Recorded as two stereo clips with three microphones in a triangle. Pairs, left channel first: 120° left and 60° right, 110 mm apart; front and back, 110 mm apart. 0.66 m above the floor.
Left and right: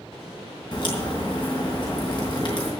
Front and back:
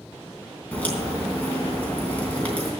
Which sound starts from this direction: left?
A crack, at 0.7 s.